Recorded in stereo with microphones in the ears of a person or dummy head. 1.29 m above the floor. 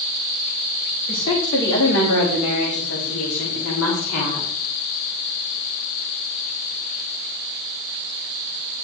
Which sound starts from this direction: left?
A woman speaking, at 1.1 s.